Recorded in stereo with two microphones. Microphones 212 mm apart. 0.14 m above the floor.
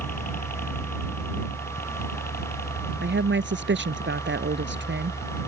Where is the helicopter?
40° left (ahead or behind); by 5.5 s 45° left (ahead or behind).